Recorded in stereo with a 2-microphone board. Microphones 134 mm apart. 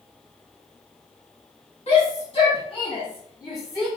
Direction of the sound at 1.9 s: 50° left (ahead or behind).